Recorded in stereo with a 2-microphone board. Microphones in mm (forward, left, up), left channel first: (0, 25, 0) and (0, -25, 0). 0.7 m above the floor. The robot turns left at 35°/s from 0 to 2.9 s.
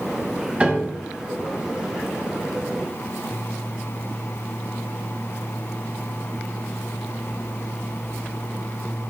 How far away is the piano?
About 1.9 m.